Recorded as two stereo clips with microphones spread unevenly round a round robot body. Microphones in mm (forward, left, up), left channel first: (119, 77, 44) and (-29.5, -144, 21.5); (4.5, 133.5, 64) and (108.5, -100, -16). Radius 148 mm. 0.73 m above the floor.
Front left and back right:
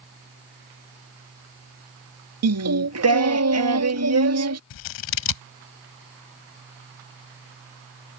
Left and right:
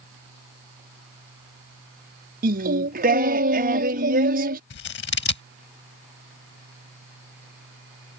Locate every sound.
2.4 s singing: 110° right
4.7 s scissors: 75° left